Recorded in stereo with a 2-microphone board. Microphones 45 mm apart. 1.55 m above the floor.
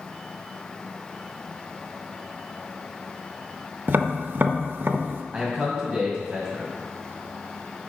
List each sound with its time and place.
3.9 s tapping: 50° right (ahead or behind), 0.5 m
5.3 s a man speaking: 10° right (ahead or behind), 2 m